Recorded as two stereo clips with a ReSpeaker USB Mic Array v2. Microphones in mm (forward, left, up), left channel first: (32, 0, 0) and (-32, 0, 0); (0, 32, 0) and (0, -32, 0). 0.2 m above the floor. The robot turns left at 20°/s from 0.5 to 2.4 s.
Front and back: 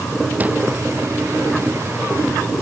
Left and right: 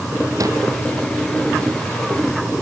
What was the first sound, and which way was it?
A whoosh, 115° right.